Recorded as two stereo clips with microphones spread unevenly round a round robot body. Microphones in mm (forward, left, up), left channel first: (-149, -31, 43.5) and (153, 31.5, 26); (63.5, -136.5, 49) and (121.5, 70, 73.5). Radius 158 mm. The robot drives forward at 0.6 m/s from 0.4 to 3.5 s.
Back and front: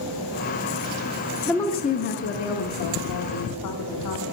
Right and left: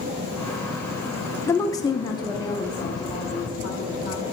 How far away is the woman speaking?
About 0.6 m.